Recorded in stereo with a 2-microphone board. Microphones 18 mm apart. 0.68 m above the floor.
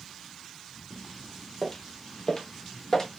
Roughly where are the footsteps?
Centre.